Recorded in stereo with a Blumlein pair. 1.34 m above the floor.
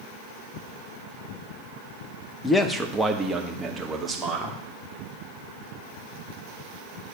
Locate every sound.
2.4 s a man speaking: 15° left, 1.1 m; by 4.6 s 15° right, 3 m